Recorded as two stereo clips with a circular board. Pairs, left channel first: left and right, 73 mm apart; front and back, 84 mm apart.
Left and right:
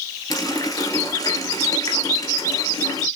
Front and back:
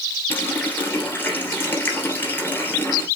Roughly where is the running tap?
Ahead left.